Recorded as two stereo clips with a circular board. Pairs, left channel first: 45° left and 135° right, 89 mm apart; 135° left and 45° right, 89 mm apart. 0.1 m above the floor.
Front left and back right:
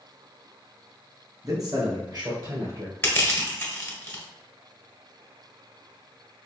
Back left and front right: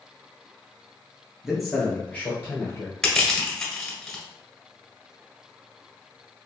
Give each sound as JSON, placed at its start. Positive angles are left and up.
{"t": 1.4, "sound": "a man speaking", "azimuth_deg": -125, "distance_m": 1.4}
{"t": 3.0, "sound": "crushing", "azimuth_deg": 65, "distance_m": 1.6}